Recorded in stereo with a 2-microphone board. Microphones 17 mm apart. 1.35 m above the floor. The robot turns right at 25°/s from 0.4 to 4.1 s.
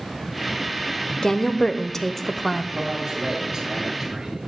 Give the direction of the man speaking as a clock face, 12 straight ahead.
2 o'clock.